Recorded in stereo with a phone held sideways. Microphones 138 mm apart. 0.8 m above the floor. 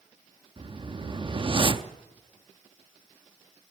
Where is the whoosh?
40° right (ahead or behind), 0.5 m.